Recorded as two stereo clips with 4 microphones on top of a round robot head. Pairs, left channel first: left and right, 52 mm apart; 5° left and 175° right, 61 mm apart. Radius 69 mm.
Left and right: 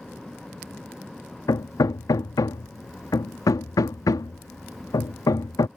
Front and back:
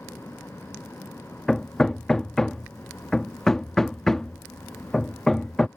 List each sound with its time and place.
1.5 s hammering: 90° left